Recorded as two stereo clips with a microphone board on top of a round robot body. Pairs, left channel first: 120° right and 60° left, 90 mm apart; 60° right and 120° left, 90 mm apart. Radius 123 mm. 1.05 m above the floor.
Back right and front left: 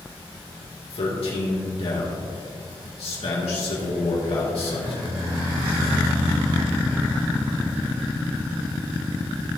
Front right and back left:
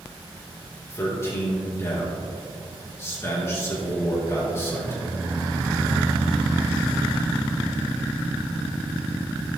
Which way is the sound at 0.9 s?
120° right.